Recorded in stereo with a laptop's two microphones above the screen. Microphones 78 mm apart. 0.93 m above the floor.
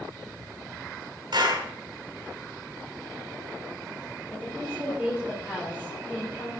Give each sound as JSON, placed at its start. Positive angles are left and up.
{"t": 1.3, "sound": "a clap", "side_deg": -75, "distance_m": 6.5}
{"t": 4.3, "sound": "a woman speaking", "side_deg": -25, "distance_m": 3.5}